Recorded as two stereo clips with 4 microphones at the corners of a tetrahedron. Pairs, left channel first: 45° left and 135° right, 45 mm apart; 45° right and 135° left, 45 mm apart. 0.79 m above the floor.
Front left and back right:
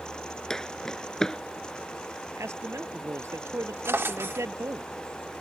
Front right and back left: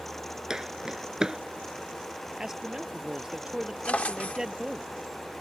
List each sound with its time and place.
0.5 s footsteps: 90° left
2.4 s a man speaking: 145° right
3.9 s a drawer: 100° right